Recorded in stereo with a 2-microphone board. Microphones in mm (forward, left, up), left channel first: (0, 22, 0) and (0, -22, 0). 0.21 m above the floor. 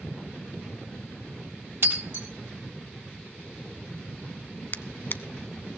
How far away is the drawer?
About 0.7 m.